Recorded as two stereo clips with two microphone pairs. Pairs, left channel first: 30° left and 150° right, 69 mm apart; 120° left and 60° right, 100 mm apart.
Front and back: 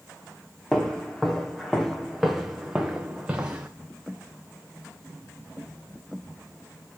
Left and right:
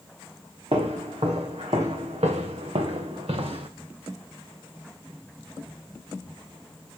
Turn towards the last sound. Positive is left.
turn(degrees=-85)